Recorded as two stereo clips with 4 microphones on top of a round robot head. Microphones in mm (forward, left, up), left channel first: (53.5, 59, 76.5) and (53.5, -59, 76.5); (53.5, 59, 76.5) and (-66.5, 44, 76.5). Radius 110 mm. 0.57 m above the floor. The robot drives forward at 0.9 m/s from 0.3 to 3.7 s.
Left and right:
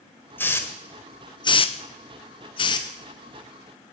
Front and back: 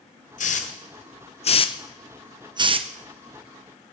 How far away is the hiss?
About 1.6 m.